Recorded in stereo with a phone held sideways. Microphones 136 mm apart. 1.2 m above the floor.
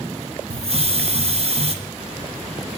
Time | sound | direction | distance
0.5 | a hiss | 50° right (ahead or behind) | 0.9 m